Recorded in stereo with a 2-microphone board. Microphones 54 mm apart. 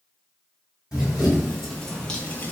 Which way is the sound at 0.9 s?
10° right (ahead or behind).